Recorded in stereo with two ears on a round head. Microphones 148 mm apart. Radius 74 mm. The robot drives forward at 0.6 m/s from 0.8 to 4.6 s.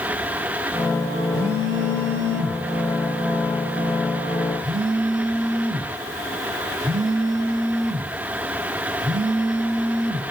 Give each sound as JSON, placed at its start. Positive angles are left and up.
{"t": 1.3, "sound": "a phone buzzing", "side_deg": -60, "distance_m": 1.0}